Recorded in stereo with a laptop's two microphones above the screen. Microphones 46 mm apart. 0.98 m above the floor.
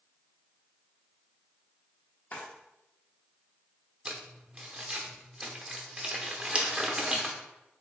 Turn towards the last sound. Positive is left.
turn(degrees=-25)  # may be behind; listen again after turning